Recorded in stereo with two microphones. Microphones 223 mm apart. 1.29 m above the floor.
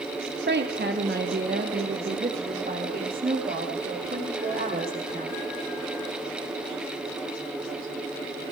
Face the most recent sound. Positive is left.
turn(degrees=-40)  # may be behind; listen again after turning